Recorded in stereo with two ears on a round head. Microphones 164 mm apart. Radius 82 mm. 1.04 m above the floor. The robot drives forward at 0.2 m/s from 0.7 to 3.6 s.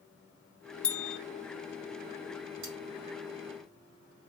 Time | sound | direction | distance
0.8 | a bell | 5° left (ahead or behind) | 0.7 m
2.6 | cutlery clinking | 80° right | 3 m